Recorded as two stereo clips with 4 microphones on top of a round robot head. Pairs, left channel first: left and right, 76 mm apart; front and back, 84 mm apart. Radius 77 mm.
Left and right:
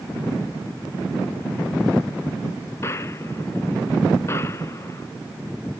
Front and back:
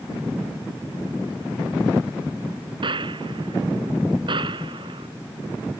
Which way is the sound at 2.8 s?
155° left.